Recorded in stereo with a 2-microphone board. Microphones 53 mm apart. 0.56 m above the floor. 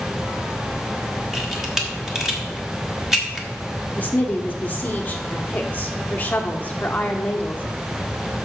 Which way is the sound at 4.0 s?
30° left (ahead or behind).